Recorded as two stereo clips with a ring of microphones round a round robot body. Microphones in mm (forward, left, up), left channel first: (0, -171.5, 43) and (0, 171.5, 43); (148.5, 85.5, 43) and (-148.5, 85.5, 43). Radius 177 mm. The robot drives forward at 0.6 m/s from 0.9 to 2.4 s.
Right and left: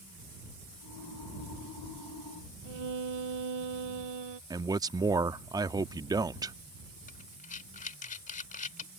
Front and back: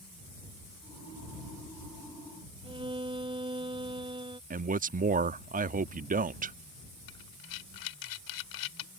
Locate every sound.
2.6 s a violin: 105° left
4.5 s a man speaking: 160° left
7.1 s breathing: 20° right